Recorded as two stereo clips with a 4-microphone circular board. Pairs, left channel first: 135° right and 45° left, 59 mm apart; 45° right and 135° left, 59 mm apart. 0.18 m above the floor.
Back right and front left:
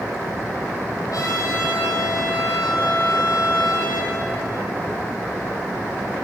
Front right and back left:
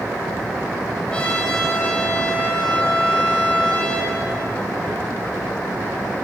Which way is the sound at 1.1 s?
120° right.